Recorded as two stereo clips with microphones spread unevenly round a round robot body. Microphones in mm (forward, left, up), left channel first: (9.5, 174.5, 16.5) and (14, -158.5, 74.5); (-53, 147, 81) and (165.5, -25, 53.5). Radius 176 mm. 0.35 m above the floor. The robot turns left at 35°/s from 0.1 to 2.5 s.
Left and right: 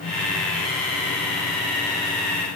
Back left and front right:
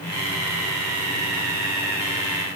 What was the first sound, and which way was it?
Only background noise.